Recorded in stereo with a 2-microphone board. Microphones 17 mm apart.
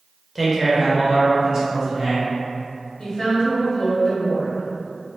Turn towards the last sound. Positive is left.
turn(degrees=40)  # may be behind; listen again after turning